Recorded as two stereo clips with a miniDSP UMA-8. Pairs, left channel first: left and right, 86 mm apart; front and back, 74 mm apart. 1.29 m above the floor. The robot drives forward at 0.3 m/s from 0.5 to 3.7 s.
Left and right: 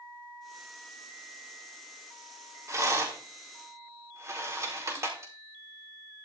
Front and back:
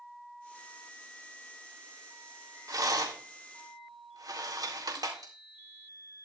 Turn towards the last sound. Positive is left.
turn(degrees=-145)